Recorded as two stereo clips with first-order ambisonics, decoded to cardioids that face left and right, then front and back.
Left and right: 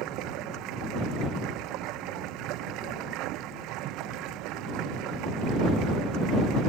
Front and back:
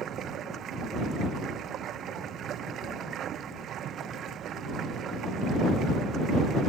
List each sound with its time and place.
0.0 s running water: 125° right